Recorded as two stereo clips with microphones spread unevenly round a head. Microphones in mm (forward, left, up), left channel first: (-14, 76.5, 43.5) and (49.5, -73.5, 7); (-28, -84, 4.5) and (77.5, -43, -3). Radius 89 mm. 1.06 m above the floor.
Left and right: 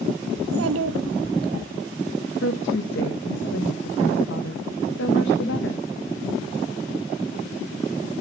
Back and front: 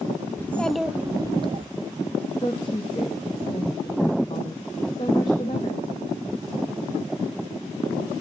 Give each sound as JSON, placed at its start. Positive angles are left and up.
{"t": 0.4, "sound": "a child speaking", "azimuth_deg": -90, "distance_m": 0.7}
{"t": 2.4, "sound": "a woman speaking", "azimuth_deg": 135, "distance_m": 1.4}